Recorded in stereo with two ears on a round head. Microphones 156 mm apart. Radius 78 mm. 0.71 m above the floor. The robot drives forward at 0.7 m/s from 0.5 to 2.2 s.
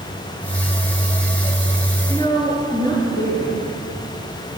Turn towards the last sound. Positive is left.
turn(degrees=20)  # may be behind; listen again after turning